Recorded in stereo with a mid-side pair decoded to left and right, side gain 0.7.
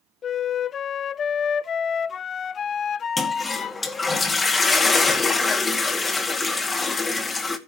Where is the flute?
35° left, 0.5 m.